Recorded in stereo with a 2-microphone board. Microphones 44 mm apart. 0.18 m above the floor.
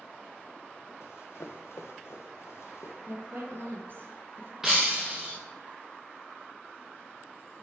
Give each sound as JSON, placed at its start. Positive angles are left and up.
{"t": 1.0, "sound": "running footsteps", "side_deg": 75, "distance_m": 1.4}
{"t": 3.1, "sound": "a woman speaking", "side_deg": -50, "distance_m": 2.5}
{"t": 4.6, "sound": "breaking glass", "side_deg": -10, "distance_m": 1.6}